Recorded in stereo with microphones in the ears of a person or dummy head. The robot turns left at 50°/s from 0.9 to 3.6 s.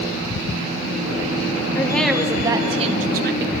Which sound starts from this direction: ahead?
A woman speaking, at 1.8 s.